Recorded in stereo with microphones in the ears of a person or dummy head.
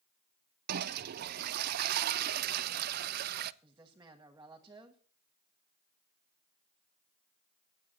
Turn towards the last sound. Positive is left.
turn(degrees=-20)  # may be behind; listen again after turning